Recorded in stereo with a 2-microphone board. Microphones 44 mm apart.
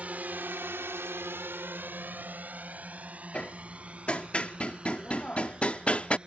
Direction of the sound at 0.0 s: 35° right (ahead or behind).